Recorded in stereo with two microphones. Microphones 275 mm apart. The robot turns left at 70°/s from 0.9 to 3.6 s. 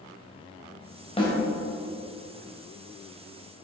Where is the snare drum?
20° left (ahead or behind), 2.5 m; by 1.3 s 10° left (ahead or behind), 2.5 m.